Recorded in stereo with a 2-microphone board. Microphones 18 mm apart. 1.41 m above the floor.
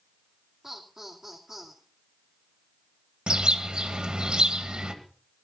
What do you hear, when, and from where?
0.6 s laughter: 25° right (ahead or behind), 2.5 m
3.3 s a bird: 65° right (ahead or behind), 2 m